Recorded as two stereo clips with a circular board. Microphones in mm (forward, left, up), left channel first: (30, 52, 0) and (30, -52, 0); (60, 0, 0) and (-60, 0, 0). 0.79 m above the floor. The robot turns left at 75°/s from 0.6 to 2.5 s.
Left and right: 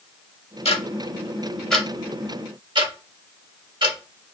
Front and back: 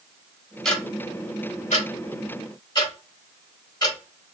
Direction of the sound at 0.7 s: 90° left.